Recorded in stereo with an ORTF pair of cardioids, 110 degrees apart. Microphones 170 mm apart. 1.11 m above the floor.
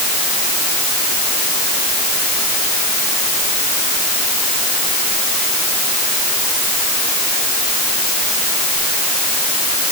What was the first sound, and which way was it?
Only background noise.